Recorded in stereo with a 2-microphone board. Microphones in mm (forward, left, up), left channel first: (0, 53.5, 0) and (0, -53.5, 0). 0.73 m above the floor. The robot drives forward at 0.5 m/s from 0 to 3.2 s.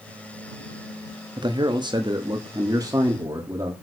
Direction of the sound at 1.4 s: 45° right (ahead or behind).